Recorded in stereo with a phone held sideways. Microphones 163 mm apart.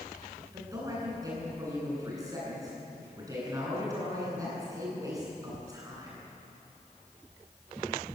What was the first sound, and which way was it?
A man speaking, 20° right (ahead or behind).